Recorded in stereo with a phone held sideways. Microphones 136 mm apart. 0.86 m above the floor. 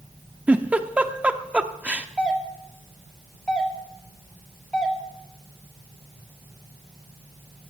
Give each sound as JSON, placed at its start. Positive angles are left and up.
{"t": 0.5, "sound": "a giggle", "side_deg": -10, "distance_m": 0.6}
{"t": 2.2, "sound": "a doorbell", "side_deg": 10, "distance_m": 1.8}